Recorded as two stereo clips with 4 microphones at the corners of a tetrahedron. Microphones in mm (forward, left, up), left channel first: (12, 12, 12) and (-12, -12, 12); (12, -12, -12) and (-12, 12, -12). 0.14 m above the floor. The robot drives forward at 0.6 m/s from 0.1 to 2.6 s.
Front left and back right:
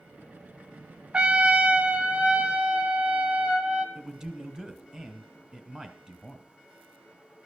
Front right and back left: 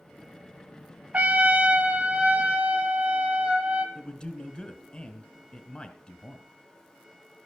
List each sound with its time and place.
1.1 s a trumpet: 175° left, 0.6 m; by 3.9 s straight behind, 1.4 m
4.0 s a man speaking: 80° right, 1.1 m